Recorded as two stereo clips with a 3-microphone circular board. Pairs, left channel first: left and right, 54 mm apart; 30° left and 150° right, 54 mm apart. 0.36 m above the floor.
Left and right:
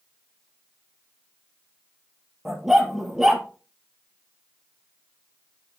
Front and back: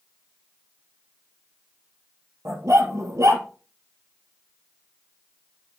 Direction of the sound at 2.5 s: Straight behind.